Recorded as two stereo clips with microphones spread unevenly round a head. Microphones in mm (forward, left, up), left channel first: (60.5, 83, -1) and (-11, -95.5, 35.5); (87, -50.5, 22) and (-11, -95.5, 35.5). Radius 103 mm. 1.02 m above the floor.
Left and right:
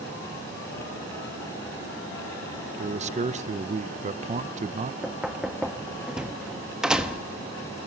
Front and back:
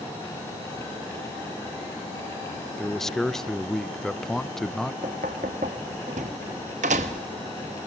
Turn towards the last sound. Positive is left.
turn(degrees=165)